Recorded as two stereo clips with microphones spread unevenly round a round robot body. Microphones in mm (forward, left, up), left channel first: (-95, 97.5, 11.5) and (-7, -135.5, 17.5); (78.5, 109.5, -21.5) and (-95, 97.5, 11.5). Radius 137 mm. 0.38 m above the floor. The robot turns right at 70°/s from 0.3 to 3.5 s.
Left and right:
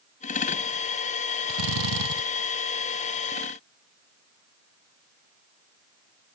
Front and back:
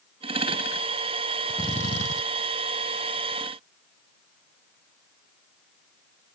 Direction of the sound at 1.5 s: 85° right.